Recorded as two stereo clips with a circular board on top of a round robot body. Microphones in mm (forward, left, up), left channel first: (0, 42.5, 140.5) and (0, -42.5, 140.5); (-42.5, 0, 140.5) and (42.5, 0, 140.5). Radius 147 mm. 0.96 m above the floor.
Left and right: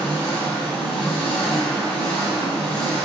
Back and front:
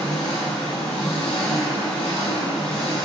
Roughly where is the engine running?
Behind.